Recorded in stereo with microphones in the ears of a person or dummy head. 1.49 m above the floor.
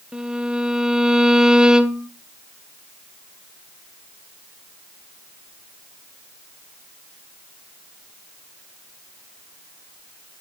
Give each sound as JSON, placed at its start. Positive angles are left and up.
{"t": 0.1, "sound": "a violin", "side_deg": -5, "distance_m": 0.5}